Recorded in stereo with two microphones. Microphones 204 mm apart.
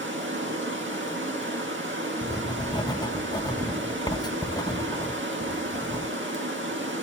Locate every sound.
0.0 s running water: 70° right (ahead or behind), 1.8 m
2.2 s writing: 20° left (ahead or behind), 0.5 m